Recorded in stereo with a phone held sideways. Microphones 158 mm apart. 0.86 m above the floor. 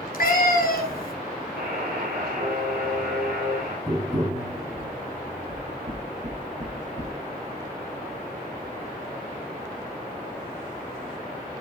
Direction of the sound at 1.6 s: 75° right (ahead or behind).